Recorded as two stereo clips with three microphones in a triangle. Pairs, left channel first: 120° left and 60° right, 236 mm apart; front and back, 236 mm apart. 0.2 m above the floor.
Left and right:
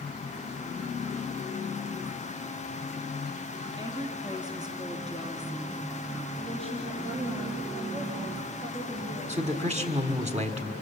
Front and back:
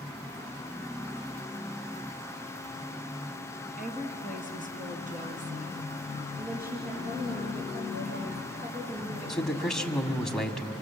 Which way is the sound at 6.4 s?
125° right.